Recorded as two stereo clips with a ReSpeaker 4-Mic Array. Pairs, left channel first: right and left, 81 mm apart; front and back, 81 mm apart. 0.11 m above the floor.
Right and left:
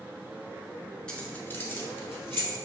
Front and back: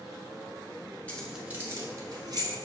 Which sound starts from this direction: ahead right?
Keys jangling, at 1.1 s.